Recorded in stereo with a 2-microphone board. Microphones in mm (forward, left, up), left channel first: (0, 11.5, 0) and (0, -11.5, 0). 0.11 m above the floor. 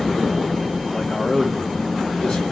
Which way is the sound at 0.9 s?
60° left (ahead or behind).